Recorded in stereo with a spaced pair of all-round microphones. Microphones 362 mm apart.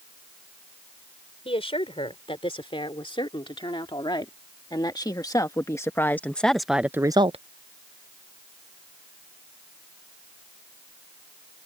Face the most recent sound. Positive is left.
turn(degrees=-20)  # may be behind; listen again after turning